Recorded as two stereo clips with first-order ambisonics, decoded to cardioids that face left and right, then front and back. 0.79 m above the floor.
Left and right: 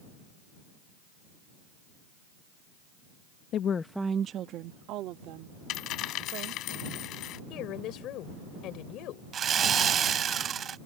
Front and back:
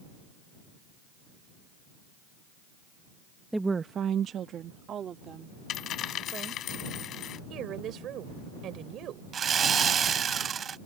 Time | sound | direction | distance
3.5 | a woman speaking | 95° left | ?
5.7 | a dropped coin | 50° left | ?
7.5 | a woman speaking | 130° left | ?
9.3 | sawing | 135° right | ?